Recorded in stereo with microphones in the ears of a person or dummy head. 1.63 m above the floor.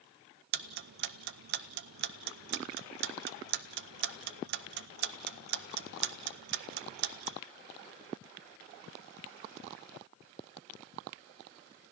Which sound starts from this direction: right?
Ticking, at 0.5 s.